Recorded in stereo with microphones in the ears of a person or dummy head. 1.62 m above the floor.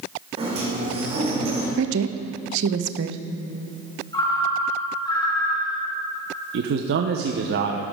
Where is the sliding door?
30° right (ahead or behind), 3 m.